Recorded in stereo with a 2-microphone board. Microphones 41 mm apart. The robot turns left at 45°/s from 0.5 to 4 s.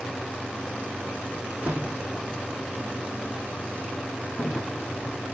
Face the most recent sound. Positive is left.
turn(degrees=60)  # may be behind; listen again after turning